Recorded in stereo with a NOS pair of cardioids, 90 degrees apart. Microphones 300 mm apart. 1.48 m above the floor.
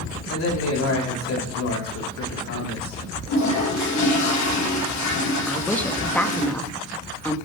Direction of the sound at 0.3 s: 60° left.